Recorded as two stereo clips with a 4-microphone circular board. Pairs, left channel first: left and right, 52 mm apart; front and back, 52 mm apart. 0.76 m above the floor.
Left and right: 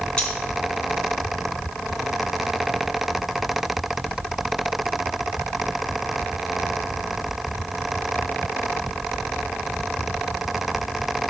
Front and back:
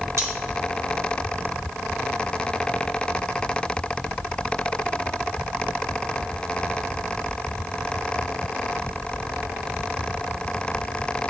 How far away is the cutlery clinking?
About 4.5 m.